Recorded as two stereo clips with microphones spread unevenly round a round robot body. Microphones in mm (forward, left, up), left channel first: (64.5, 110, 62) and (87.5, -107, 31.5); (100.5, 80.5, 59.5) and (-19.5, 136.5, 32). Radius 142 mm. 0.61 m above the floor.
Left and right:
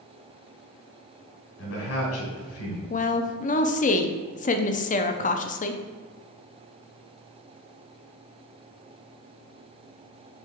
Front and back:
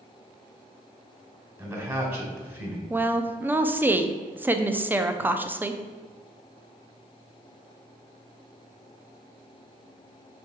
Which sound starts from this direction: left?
A man speaking, at 1.6 s.